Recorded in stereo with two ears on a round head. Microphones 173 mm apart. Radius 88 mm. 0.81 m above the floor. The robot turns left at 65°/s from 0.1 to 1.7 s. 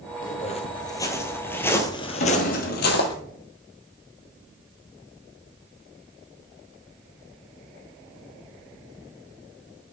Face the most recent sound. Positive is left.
turn(degrees=50)  # may be behind; listen again after turning